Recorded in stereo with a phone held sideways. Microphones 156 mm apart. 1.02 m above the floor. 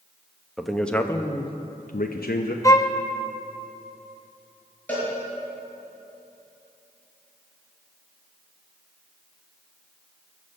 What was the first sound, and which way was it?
A man speaking, centre (ahead or behind).